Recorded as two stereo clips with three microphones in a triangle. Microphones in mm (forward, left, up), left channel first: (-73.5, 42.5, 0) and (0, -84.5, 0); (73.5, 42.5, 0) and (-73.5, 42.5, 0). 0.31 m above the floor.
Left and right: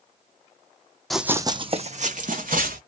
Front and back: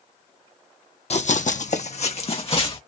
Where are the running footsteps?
30° left, 0.5 m; by 2.8 s 50° right, 1.3 m.